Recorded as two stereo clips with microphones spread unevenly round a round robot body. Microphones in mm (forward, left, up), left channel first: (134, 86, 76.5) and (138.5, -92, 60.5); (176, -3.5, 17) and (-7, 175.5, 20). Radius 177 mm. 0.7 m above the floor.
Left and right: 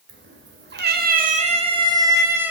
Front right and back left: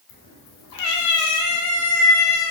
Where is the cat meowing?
85° right, 1.0 m; by 2.5 s 5° right, 1.3 m.